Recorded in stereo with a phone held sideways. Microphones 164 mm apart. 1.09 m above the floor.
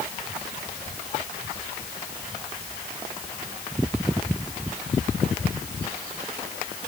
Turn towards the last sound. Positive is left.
No sound to turn to.